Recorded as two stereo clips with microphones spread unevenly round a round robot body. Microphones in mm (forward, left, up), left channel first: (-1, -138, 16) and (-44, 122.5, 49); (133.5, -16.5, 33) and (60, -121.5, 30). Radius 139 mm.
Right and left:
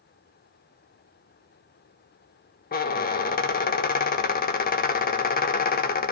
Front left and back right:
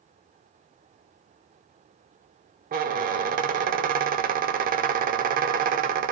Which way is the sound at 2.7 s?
140° right.